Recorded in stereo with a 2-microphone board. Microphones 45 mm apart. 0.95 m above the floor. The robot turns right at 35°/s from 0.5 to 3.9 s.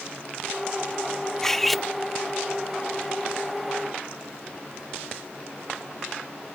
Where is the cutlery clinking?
10° left (ahead or behind); by 1.9 s 5° right (ahead or behind).